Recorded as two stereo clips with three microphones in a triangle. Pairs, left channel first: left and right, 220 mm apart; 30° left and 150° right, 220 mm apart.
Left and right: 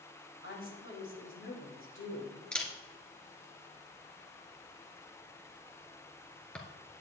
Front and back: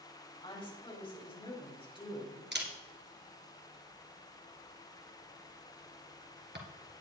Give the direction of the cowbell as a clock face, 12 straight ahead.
I don't hear a cowbell.